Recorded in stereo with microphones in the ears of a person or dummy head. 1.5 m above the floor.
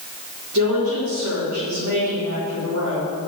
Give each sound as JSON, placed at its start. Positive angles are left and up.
{"t": 0.5, "sound": "a woman speaking", "side_deg": -75, "distance_m": 4.0}